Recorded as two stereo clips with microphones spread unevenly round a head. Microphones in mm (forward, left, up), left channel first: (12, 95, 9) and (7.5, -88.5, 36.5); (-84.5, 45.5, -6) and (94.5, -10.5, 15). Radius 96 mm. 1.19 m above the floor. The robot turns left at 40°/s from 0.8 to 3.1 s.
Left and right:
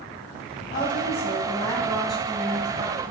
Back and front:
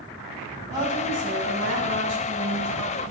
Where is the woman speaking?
55° left, 1.7 m; by 3.0 s 35° right, 1.7 m.